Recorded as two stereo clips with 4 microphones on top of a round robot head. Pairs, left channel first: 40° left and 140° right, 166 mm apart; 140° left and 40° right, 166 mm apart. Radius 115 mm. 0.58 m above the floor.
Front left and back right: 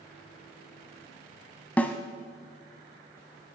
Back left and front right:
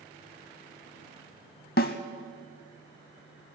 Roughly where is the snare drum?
Behind left.